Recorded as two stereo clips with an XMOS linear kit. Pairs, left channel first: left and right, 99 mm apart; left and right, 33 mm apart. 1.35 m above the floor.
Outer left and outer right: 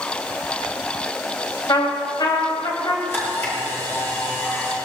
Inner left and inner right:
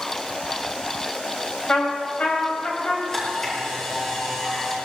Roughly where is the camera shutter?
Left.